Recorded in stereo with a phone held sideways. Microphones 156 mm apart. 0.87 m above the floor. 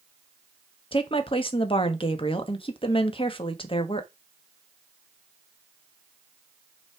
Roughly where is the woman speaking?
Left.